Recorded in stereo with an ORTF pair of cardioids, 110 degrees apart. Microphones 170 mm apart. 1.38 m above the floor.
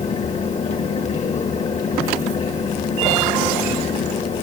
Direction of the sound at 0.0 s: 45° left.